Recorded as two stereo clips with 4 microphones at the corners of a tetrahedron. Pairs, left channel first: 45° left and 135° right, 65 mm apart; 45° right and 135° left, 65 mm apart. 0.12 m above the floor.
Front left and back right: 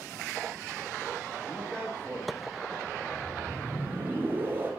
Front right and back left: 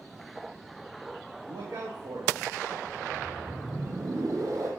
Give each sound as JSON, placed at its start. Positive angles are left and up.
{"t": 1.4, "sound": "a man speaking", "azimuth_deg": 120, "distance_m": 5.5}
{"t": 2.9, "sound": "a whoosh", "azimuth_deg": 165, "distance_m": 4.0}